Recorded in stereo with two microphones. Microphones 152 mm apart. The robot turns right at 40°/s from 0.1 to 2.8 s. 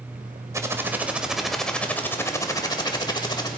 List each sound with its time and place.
0.5 s typing on a keyboard: 40° right, 1.0 m; by 3.5 s 55° left, 1.0 m